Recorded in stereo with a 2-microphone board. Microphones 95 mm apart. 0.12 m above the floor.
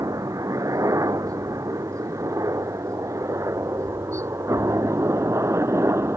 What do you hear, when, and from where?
0.0 s a helicopter: 35° right (ahead or behind); by 6.2 s 30° right (ahead or behind)